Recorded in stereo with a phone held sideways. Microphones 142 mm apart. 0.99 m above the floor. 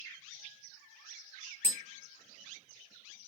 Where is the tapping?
40° right (ahead or behind), 1.0 m.